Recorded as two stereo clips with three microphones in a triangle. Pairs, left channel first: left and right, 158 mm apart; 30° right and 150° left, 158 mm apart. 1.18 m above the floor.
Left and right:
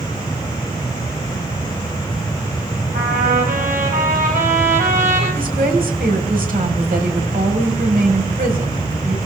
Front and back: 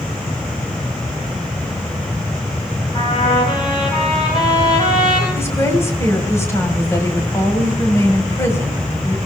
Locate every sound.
2.9 s a trumpet: 85° right, 9 m
5.3 s a woman speaking: 100° right, 4.5 m